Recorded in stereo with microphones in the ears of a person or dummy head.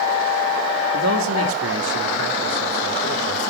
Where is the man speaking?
65° right (ahead or behind), 2 m; by 3.4 s 75° right (ahead or behind), 4 m.